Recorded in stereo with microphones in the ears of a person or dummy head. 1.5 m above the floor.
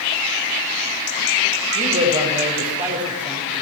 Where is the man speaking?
40° right (ahead or behind), 6 m.